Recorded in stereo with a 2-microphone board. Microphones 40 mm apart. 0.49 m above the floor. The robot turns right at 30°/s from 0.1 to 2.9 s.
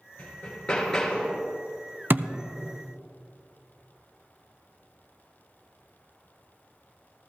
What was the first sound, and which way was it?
Hammering, 145° left.